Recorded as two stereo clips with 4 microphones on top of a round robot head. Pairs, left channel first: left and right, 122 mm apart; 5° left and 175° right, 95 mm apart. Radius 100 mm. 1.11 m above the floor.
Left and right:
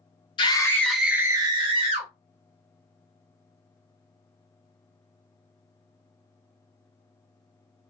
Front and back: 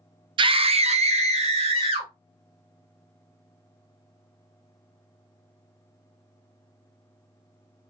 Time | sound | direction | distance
0.4 | a scream | 145° left | 0.6 m